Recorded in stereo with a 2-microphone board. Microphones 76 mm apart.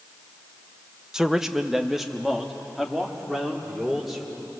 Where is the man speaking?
10° right (ahead or behind), 0.9 m; by 4.5 s centre (ahead or behind), 4 m.